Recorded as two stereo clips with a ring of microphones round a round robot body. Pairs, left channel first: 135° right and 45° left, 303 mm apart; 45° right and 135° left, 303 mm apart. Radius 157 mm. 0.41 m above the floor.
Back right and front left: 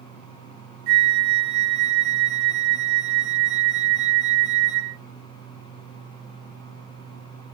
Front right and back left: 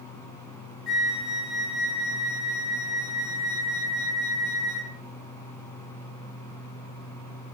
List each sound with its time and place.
0.9 s a flute: 45° left, 3 m